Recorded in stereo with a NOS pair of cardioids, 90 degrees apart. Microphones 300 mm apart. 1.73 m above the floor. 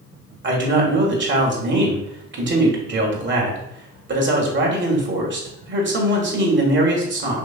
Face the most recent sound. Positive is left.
turn(degrees=-40)